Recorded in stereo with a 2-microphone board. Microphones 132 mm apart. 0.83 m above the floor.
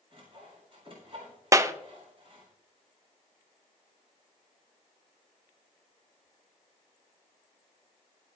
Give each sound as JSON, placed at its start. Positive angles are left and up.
{"t": 0.1, "sound": "sawing", "side_deg": -45, "distance_m": 4.0}
{"t": 1.5, "sound": "a clap", "side_deg": -25, "distance_m": 0.5}